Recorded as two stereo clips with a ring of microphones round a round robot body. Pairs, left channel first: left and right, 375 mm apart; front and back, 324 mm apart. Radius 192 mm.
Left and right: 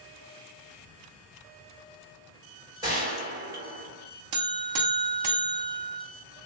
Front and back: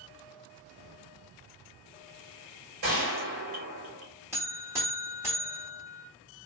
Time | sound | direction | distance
2.8 | a gunshot | 170° right | 1.8 m
4.3 | a buzzer | 100° right | 0.7 m